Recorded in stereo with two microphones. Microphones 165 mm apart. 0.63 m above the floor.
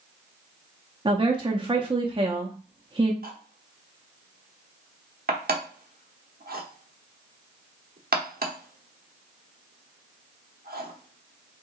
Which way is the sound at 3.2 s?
65° right (ahead or behind).